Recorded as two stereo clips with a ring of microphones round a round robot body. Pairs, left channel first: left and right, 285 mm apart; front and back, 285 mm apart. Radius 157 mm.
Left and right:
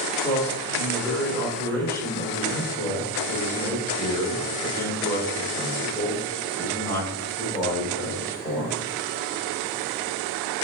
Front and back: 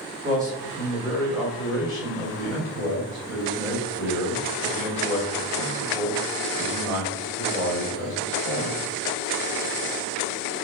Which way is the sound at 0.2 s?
160° left.